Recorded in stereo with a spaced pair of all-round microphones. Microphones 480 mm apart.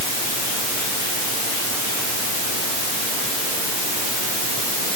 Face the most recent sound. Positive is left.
No sound to turn to.